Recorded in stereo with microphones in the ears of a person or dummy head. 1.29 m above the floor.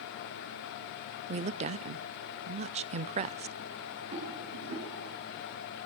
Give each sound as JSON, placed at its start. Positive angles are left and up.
{"t": 1.3, "sound": "a woman speaking", "side_deg": -35, "distance_m": 0.6}
{"t": 4.1, "sound": "a rattle", "side_deg": -35, "distance_m": 8.0}